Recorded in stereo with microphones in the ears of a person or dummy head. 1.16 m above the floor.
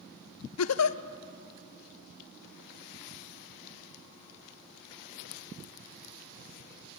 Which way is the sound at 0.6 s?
90° left.